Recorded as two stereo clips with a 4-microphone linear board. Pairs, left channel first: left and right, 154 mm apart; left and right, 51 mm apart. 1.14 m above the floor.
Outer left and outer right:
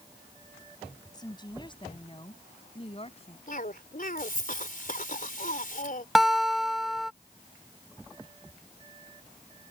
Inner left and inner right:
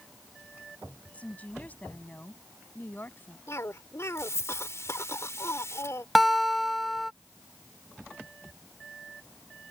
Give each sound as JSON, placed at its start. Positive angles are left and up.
{"t": 1.1, "sound": "a woman speaking", "side_deg": 25}
{"t": 3.5, "sound": "a cough", "side_deg": 60}
{"t": 6.2, "sound": "a guitar", "side_deg": 0}